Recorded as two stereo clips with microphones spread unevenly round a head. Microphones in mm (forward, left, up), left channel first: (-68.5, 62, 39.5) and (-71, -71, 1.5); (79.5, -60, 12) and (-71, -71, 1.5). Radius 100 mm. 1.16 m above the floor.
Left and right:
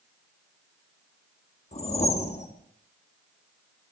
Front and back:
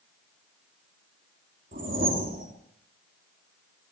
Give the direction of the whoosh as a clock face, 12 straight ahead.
8 o'clock.